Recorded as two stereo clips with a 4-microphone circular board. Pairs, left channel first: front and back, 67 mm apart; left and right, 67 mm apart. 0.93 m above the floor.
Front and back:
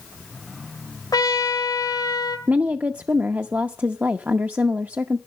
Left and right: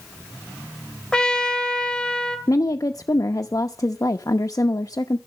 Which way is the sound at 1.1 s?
10° left.